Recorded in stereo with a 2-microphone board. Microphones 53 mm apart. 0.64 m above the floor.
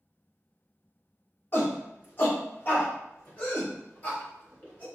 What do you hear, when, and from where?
1.5 s a shout: 45° left (ahead or behind), 1.3 m; by 4.8 s 35° left (ahead or behind), 3.5 m